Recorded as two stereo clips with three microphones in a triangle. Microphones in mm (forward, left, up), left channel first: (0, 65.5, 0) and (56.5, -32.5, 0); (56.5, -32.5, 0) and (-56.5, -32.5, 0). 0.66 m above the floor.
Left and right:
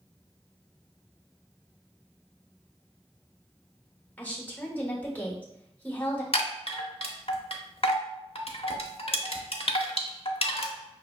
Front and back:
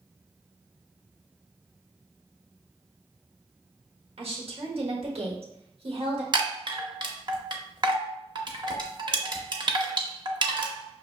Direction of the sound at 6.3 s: 140° left.